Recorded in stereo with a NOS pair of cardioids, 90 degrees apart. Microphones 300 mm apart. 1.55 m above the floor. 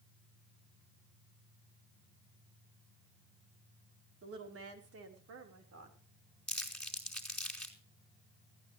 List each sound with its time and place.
4.2 s a woman speaking: 45° right, 4 m; by 6.0 s 60° right, 5.5 m
6.5 s crumpling: straight ahead, 4.5 m